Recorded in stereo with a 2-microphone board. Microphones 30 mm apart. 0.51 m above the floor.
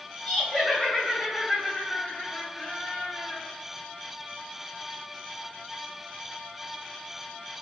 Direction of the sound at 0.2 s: 25° right (ahead or behind).